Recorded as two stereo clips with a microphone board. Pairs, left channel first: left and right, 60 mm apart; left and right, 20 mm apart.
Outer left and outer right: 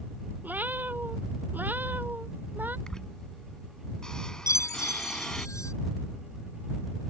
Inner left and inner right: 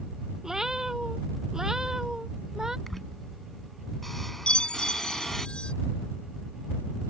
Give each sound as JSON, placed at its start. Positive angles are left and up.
{"t": 0.4, "sound": "a cat meowing", "side_deg": -30}
{"t": 2.9, "sound": "a squeak", "side_deg": 10}
{"t": 4.5, "sound": "a chime", "side_deg": 70}